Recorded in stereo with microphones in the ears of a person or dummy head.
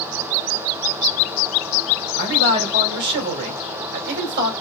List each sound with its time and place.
2.2 s a man speaking: 55° right (ahead or behind), 3.5 m